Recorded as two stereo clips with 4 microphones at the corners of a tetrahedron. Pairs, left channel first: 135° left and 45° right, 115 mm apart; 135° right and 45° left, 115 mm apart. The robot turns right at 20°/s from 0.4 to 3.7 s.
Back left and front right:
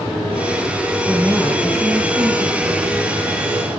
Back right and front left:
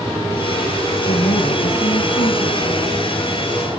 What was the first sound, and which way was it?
A woman speaking, 140° right.